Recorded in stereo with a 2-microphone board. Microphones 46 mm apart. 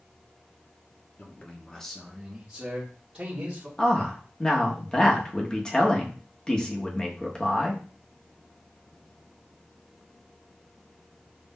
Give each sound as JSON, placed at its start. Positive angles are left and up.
{"t": 1.2, "sound": "a man speaking", "side_deg": 30, "distance_m": 0.8}
{"t": 3.8, "sound": "a man speaking", "side_deg": 20, "distance_m": 0.8}